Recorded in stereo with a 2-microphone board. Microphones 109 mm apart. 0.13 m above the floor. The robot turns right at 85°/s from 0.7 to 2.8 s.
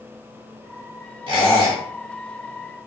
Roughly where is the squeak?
Right.